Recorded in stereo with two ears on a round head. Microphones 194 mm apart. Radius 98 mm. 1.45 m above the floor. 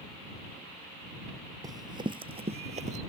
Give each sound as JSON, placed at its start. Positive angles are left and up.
{"t": 1.6, "sound": "running footsteps", "side_deg": -20}